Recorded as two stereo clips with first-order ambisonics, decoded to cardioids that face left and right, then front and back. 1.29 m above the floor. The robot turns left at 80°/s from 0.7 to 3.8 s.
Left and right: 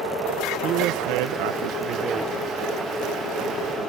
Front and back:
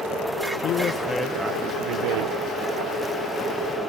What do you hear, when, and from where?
0.6 s a woman speaking: 45° right, 0.5 m; by 2.4 s straight behind, 0.5 m